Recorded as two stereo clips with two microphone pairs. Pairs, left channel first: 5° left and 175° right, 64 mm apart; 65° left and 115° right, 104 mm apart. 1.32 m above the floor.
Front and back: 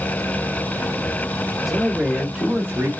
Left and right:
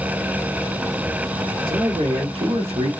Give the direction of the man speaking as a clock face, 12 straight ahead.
3 o'clock.